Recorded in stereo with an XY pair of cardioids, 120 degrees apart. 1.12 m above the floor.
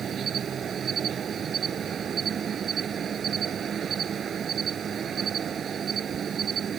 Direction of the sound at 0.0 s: 40° right.